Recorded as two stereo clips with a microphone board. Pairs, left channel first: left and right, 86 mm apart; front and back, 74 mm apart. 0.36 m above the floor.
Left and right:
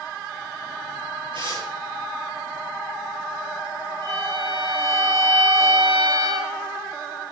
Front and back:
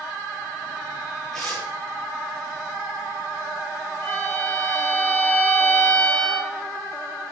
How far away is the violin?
About 8.5 m.